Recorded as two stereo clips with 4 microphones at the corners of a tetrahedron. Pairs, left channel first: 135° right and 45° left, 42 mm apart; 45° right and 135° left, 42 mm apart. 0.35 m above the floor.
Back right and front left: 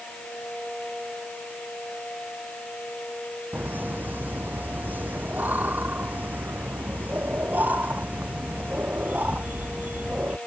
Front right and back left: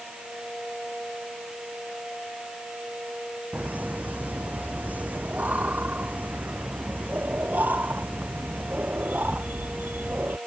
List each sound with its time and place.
3.5 s laughter: 85° left; by 10.4 s 95° left